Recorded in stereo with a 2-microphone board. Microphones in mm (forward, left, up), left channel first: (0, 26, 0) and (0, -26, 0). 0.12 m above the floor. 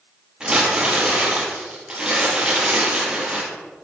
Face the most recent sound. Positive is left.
turn(degrees=-20)  # may be behind; listen again after turning